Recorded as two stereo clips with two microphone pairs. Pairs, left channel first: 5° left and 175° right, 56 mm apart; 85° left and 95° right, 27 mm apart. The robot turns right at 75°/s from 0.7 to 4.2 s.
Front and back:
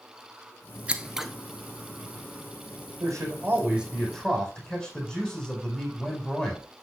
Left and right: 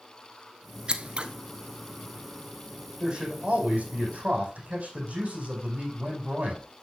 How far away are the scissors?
About 1.0 m.